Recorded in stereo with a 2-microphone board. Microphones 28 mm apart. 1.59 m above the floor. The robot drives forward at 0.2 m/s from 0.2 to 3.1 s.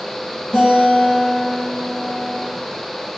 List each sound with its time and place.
0.5 s a guitar: 15° left (ahead or behind), 1.8 m